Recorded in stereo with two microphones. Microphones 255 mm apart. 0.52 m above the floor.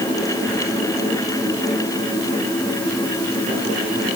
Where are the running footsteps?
I don't hear running footsteps.